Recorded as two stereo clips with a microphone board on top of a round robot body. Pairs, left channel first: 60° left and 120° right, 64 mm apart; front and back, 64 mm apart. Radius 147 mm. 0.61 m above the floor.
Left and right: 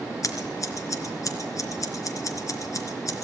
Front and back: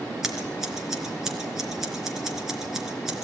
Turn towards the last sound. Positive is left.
turn(degrees=95)